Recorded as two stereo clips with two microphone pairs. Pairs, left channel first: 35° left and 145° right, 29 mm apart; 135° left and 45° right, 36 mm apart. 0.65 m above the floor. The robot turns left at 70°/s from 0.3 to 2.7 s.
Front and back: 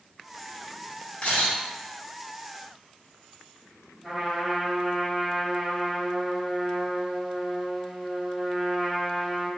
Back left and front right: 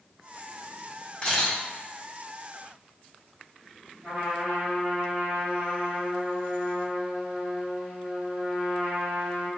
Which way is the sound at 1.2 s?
70° left.